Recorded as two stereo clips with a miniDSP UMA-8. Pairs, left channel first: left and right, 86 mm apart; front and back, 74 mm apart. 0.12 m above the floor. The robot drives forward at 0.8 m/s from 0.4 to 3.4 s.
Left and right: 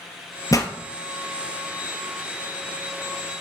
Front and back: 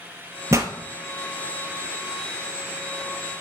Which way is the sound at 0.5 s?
130° left.